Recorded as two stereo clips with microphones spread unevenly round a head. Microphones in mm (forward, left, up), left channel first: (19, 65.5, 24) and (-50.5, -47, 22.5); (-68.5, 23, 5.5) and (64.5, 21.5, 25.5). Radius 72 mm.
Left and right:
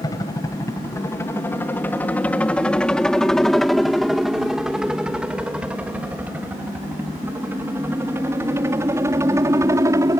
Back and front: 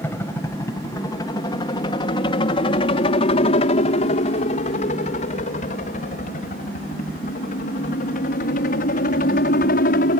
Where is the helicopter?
115° left; by 10.2 s 170° left.